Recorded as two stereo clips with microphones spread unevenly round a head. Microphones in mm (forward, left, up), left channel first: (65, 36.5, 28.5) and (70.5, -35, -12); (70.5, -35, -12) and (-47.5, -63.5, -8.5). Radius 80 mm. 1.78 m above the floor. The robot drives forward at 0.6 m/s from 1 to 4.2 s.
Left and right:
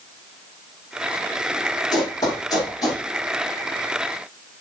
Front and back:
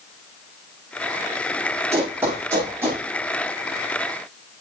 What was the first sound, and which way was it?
Running footsteps, 120° left.